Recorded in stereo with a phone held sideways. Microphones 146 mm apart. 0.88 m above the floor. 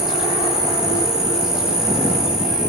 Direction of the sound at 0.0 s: 5° right (ahead or behind).